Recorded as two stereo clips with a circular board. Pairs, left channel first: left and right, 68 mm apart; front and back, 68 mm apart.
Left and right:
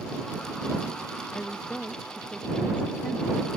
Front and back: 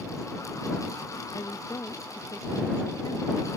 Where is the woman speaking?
15° left.